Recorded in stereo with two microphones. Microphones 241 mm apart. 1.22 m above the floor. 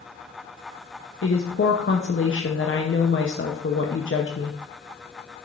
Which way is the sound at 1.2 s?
55° left (ahead or behind).